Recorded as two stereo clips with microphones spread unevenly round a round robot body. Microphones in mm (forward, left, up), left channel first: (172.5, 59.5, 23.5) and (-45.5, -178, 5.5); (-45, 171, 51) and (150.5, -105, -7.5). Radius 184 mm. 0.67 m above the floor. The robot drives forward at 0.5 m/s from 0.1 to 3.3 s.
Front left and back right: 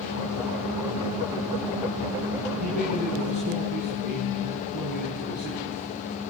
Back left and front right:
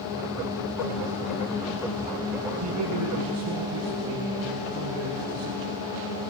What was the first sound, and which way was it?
A man speaking, 100° right.